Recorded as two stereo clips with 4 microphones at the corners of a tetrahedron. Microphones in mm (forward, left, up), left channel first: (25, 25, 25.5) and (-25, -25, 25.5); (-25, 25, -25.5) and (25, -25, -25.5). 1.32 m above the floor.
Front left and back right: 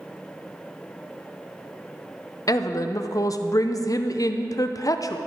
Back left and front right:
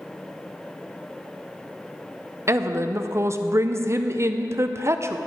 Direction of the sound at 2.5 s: 5° left.